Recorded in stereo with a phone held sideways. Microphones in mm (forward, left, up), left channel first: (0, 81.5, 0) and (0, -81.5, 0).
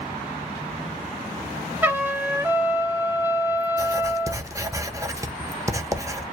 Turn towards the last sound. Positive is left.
turn(degrees=-20)  # may be behind; listen again after turning